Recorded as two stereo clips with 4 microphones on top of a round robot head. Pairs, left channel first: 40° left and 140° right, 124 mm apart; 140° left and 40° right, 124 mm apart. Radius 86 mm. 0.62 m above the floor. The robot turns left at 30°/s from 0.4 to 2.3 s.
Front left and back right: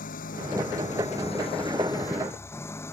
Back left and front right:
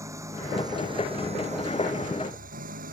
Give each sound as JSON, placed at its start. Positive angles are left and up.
{"t": 0.0, "sound": "an engine running", "azimuth_deg": 25}